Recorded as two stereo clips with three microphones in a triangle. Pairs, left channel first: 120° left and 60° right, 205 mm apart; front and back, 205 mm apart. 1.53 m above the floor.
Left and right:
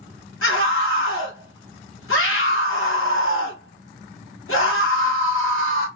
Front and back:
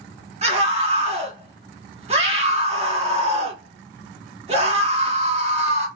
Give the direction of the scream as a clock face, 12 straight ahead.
8 o'clock.